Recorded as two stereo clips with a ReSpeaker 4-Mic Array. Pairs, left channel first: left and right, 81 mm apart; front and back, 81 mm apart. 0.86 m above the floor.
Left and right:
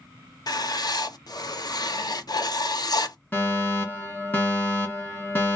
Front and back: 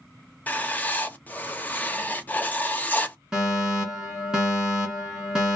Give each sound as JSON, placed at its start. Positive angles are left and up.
{"t": 0.5, "sound": "writing", "azimuth_deg": 65, "distance_m": 0.5}
{"t": 3.3, "sound": "a fire alarm", "azimuth_deg": 105, "distance_m": 1.8}